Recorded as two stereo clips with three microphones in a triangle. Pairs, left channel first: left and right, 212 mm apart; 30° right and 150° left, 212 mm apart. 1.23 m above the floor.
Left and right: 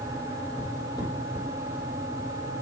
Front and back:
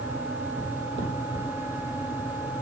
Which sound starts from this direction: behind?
Footsteps, at 0.6 s.